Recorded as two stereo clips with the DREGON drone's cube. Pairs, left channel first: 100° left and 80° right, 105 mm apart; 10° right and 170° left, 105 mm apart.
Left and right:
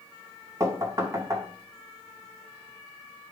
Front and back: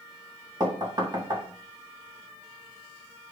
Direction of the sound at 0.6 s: 140° right.